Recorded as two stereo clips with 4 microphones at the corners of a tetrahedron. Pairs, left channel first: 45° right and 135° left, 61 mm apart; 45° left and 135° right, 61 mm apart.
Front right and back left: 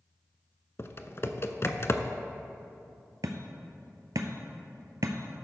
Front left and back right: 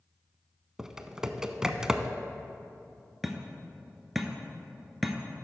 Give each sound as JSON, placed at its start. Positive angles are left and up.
{"t": 0.8, "sound": "typing on a keyboard", "azimuth_deg": -60, "distance_m": 0.5}
{"t": 3.2, "sound": "hammering", "azimuth_deg": 135, "distance_m": 0.9}